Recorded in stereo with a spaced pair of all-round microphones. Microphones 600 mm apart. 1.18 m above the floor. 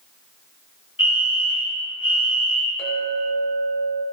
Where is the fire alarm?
20° left (ahead or behind), 1.6 m.